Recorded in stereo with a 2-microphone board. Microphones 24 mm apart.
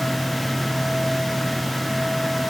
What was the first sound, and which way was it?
Only background noise.